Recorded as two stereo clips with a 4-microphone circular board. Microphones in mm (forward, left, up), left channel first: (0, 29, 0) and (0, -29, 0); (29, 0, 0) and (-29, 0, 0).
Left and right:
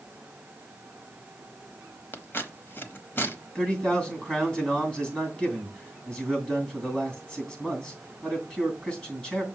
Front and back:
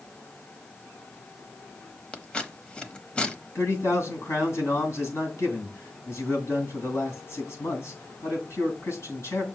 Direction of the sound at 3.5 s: 20° left.